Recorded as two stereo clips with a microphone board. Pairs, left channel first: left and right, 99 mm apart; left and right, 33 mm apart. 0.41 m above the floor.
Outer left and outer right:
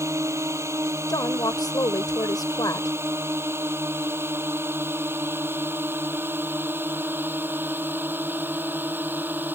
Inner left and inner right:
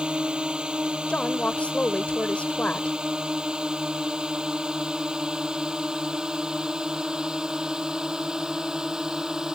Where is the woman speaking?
40° left (ahead or behind).